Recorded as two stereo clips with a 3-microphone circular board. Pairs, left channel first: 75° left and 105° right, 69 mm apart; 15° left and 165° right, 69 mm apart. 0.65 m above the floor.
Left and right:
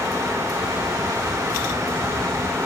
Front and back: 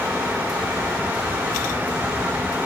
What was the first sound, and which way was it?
Only background noise.